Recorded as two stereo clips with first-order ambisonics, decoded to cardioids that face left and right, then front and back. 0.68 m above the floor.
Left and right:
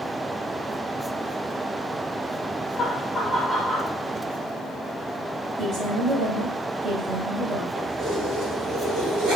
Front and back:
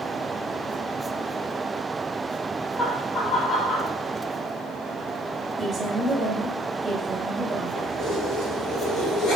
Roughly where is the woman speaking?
Right.